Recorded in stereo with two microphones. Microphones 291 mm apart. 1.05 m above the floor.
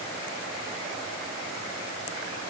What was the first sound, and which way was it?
Only background noise.